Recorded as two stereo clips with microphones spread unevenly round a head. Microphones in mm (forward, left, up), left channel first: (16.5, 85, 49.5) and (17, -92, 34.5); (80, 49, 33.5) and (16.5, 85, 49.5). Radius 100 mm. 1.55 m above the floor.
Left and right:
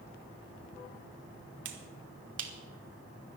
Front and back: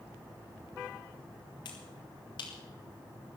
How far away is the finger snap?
About 1.7 m.